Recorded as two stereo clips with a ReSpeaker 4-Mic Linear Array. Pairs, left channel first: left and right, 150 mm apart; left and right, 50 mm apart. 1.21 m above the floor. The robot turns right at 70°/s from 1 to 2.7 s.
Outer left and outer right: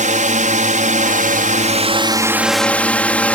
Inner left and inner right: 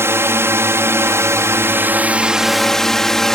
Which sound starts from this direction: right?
A drone, at 0.0 s.